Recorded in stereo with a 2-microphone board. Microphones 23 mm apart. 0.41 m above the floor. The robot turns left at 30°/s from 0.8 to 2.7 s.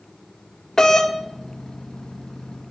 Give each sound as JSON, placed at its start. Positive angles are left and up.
{"t": 0.8, "sound": "a doorbell", "side_deg": 25, "distance_m": 1.9}